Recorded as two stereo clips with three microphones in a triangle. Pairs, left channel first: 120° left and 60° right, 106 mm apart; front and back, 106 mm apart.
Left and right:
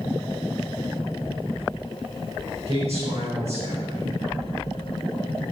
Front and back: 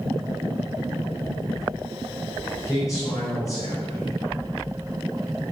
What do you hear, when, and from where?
2.7 s a man speaking: 55° right, 5 m